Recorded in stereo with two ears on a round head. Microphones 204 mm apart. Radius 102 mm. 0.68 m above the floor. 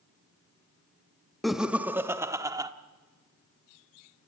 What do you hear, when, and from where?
1.4 s laughter: centre (ahead or behind), 0.7 m; by 2.7 s 15° right (ahead or behind), 1.4 m